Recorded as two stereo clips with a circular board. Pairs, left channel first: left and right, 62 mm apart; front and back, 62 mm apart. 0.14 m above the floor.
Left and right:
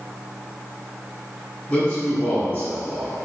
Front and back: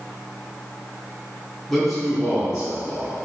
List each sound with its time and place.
1.7 s a man speaking: 85° left, 1.8 m; by 3.3 s 135° left, 2.5 m